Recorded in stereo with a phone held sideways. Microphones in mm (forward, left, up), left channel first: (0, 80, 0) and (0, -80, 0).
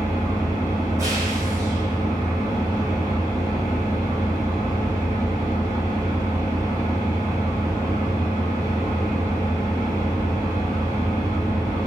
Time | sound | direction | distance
0.0 | an engine running | 20° right (ahead or behind) | 2.5 m